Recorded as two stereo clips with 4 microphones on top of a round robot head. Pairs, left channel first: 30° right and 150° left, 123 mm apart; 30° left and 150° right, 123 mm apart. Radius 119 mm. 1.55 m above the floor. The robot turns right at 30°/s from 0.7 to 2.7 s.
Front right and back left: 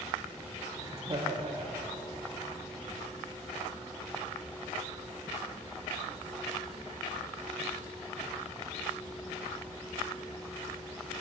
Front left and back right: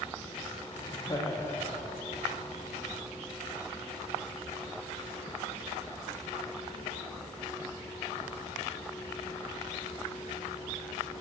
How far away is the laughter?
About 1.1 m.